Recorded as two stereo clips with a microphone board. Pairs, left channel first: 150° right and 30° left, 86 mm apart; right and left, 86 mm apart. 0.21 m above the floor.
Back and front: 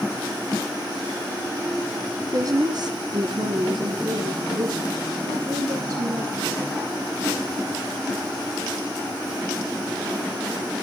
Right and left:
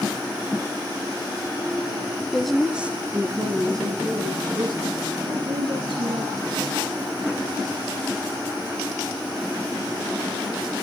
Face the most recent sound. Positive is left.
turn(degrees=75)